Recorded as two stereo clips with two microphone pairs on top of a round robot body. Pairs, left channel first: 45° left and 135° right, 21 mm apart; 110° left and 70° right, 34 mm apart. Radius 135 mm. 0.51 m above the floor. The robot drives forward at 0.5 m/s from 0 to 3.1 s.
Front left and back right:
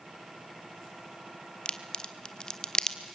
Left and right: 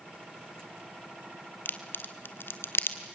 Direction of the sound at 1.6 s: 80° left.